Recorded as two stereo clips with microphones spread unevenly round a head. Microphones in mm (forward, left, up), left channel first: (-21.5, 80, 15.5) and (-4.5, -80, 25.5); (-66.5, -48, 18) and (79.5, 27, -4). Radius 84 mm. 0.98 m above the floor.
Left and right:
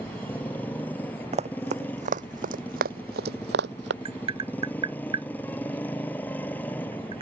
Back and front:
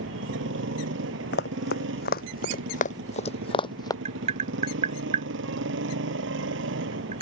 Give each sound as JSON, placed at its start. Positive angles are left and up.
{"t": 0.0, "sound": "a motorcycle", "azimuth_deg": 15}
{"t": 1.3, "sound": "running footsteps", "azimuth_deg": -135}
{"t": 4.0, "sound": "tapping", "azimuth_deg": -25}